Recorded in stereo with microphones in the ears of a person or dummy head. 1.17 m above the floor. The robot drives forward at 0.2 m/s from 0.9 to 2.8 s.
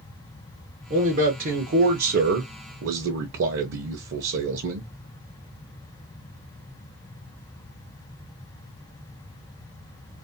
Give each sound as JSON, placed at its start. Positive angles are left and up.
{"t": 0.9, "sound": "a man speaking", "side_deg": -45, "distance_m": 0.8}